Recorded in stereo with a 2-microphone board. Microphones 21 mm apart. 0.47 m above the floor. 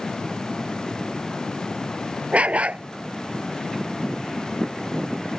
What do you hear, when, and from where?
2.3 s a dog barking: 85° right